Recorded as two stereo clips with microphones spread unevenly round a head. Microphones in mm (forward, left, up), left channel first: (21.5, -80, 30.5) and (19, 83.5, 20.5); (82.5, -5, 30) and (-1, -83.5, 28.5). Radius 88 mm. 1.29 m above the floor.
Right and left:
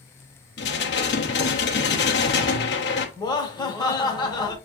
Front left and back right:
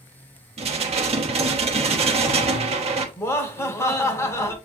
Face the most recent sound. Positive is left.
turn(degrees=-20)